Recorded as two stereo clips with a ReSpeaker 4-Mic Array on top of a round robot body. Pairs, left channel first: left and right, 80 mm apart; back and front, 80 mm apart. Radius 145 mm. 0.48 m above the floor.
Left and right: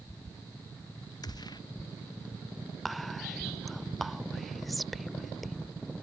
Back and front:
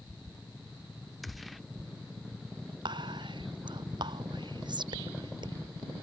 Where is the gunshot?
90° left.